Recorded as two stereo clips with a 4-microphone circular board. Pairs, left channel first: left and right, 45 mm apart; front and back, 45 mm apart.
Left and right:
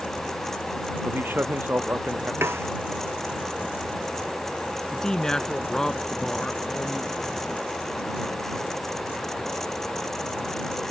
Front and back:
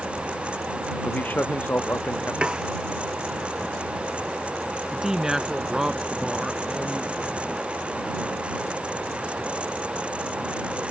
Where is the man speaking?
50° right; by 2.3 s 45° right.